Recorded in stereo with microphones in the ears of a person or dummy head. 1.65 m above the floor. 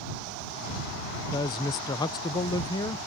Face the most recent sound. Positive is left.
turn(degrees=20)  # may be behind; listen again after turning